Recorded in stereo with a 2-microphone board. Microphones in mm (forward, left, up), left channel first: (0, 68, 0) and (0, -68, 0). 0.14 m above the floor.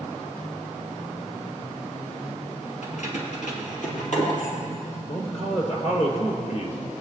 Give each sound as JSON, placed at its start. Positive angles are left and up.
{"t": 2.8, "sound": "keys jangling", "side_deg": 55, "distance_m": 2.5}
{"t": 5.1, "sound": "a man speaking", "side_deg": 45, "distance_m": 3.0}